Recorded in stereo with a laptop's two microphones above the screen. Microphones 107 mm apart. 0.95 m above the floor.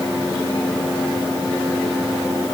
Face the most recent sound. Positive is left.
No sound to turn to.